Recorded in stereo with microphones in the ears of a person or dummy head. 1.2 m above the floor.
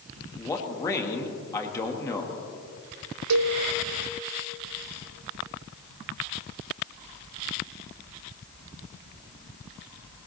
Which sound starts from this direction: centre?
A man speaking, at 0.4 s.